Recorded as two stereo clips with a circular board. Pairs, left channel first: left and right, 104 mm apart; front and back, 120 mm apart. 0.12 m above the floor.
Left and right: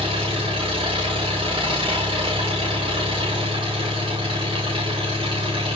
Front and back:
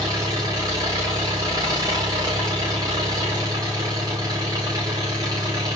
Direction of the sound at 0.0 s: 125° right.